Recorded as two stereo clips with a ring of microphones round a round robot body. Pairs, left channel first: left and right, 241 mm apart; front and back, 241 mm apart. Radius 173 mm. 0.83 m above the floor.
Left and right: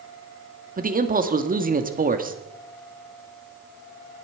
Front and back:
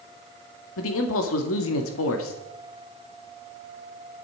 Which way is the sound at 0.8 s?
35° right.